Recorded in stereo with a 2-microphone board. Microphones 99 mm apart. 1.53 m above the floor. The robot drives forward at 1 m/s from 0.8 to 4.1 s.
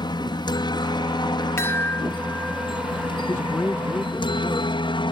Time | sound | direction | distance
0.0 | a helicopter | 50° left (ahead or behind) | ?
1.6 | a chime | 25° left (ahead or behind) | ?
3.3 | a man speaking | 25° left (ahead or behind) | ?